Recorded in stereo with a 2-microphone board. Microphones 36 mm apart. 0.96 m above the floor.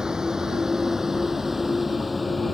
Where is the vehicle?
15° right (ahead or behind); by 2.5 s 5° left (ahead or behind).